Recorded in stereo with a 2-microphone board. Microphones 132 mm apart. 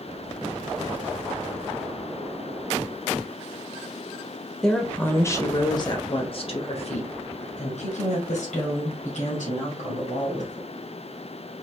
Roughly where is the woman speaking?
Centre.